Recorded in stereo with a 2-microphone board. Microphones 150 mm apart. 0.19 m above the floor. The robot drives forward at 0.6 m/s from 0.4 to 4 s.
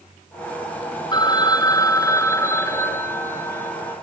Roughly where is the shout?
No shout in this recording.